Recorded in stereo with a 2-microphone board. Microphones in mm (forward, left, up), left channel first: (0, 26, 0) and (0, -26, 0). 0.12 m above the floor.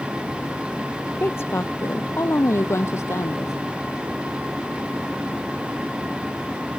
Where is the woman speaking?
50° left (ahead or behind); by 3.5 s 70° left (ahead or behind).